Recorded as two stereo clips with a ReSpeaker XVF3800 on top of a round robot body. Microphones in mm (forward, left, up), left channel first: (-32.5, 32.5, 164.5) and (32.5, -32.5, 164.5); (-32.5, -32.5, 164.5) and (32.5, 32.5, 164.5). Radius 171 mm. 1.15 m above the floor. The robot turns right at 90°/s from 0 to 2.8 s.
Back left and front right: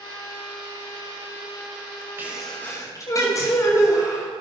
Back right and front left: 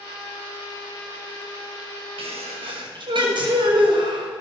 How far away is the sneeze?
About 6 m.